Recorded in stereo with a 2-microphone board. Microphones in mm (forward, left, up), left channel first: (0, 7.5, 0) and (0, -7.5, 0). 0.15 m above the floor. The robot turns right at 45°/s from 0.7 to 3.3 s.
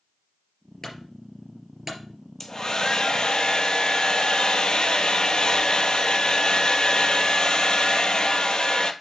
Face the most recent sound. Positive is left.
turn(degrees=70)